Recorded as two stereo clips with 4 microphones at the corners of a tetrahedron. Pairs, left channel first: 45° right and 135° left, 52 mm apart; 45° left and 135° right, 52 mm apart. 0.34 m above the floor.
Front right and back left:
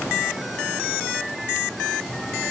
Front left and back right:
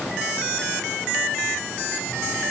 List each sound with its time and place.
Only background noise.